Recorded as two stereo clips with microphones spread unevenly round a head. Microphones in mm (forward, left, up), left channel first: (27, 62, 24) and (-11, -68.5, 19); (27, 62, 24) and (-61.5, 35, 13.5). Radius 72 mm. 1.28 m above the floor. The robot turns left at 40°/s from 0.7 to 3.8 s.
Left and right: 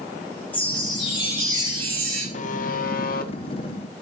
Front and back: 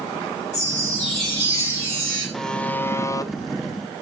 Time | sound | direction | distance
0.5 | a chime | 5° right | 9 m
2.3 | a buzzer | 105° left | 1.0 m